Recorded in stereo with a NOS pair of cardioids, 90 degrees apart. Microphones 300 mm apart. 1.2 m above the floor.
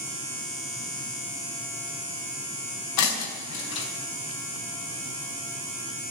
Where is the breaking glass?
70° left, 4.5 m.